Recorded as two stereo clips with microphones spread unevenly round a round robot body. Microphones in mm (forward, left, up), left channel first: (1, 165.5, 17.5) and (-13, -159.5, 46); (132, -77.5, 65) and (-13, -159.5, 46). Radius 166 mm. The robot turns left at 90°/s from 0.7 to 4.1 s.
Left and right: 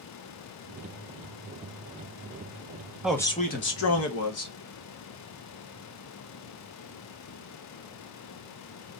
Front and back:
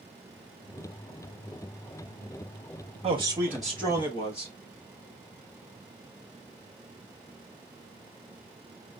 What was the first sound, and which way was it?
A man speaking, straight behind.